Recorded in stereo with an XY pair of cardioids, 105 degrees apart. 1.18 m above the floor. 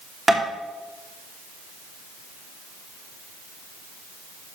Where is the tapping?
15° right, 3 m.